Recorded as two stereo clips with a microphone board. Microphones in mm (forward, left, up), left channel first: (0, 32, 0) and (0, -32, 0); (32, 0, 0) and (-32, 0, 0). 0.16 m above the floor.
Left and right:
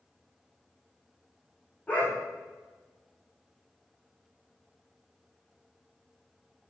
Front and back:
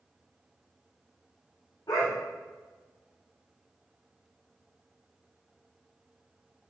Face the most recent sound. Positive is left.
turn(degrees=20)